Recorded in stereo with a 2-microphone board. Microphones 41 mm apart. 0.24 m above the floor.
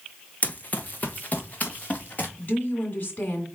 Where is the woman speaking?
40° left (ahead or behind), 2.5 m.